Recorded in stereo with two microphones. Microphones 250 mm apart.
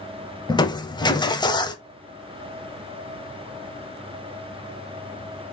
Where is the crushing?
15° left (ahead or behind), 0.6 m.